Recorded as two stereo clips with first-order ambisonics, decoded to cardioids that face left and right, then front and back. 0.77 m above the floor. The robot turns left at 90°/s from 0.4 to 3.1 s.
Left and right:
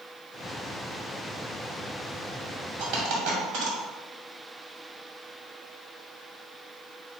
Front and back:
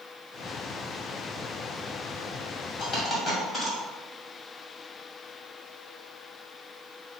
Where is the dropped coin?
50° right, 1.9 m; by 3.8 s 80° right, 1.9 m.